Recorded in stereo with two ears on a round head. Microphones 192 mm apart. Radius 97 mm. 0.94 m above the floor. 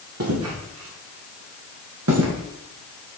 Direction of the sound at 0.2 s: 80° right.